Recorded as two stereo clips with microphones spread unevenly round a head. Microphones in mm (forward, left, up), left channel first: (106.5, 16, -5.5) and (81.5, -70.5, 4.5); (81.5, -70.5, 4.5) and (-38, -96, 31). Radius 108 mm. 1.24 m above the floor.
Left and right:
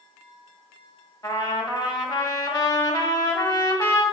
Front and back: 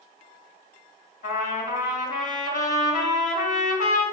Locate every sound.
1.2 s a trumpet: 35° left, 1.5 m